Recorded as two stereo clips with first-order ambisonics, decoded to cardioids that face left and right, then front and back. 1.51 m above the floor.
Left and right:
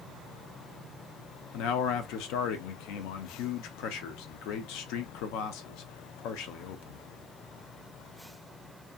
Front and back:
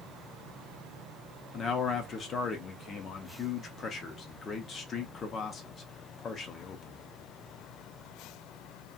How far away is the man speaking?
About 0.6 m.